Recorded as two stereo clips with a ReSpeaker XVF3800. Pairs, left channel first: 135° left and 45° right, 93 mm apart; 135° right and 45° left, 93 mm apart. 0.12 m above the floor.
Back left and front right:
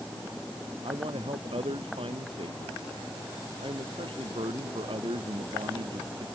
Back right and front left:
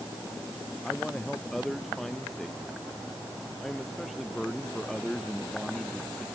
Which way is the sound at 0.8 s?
45° right.